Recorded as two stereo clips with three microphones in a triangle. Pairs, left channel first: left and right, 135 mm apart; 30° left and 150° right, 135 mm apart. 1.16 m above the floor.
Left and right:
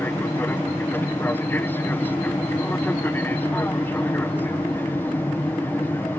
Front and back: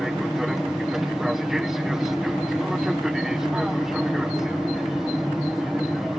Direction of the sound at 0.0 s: 130° left.